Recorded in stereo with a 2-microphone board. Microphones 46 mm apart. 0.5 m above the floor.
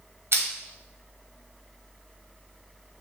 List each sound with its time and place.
0.3 s crushing: 65° right (ahead or behind), 1.0 m